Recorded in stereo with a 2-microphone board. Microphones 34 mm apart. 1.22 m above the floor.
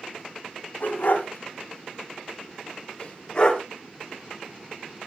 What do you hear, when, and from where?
0.8 s a dog barking: 55° left (ahead or behind), 3.5 m; by 3.6 s 20° left (ahead or behind), 1.9 m